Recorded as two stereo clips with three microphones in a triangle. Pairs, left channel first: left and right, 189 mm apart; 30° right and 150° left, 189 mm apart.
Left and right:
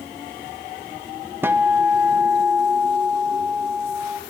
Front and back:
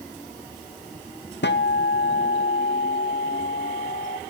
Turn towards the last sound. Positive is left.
turn(degrees=-10)